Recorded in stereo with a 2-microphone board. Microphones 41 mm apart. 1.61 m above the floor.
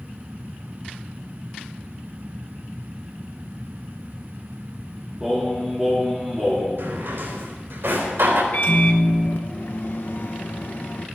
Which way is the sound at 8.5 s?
60° left (ahead or behind).